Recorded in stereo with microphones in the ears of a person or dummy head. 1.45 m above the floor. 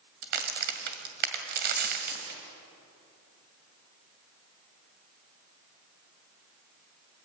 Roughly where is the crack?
Right.